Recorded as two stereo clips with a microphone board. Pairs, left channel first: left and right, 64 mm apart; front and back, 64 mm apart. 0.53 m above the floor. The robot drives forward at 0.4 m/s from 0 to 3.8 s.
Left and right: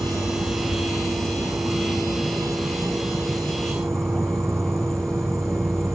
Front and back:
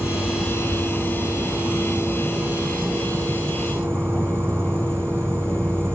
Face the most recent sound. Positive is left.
turn(degrees=-125)